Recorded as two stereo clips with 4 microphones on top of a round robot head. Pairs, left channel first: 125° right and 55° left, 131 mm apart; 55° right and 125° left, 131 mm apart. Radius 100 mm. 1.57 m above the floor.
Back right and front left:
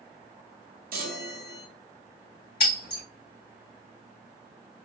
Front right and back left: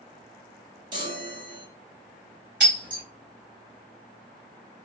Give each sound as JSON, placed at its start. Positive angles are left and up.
{"t": 0.9, "sound": "a chime", "azimuth_deg": 70, "distance_m": 0.6}
{"t": 2.6, "sound": "breaking glass", "azimuth_deg": -150, "distance_m": 2.0}